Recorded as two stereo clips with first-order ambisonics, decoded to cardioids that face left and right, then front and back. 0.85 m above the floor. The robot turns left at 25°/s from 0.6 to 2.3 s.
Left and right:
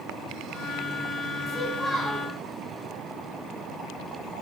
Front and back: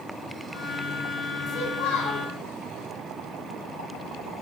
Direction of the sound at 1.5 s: 10° left.